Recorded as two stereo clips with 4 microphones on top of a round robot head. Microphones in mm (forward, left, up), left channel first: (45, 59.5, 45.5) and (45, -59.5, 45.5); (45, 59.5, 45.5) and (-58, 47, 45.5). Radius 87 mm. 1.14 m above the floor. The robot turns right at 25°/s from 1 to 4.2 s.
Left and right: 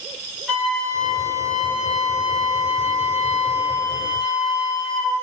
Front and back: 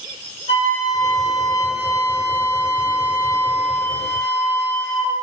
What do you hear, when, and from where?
0.5 s a flute: 10° left, 1.5 m; by 5.1 s 90° left, 1.5 m